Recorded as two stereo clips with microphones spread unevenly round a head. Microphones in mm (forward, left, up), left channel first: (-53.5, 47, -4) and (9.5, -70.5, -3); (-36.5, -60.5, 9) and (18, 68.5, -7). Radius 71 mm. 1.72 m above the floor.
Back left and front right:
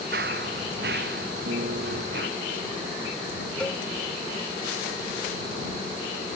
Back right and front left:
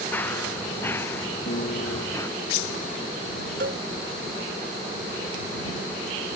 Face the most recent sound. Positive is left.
turn(degrees=35)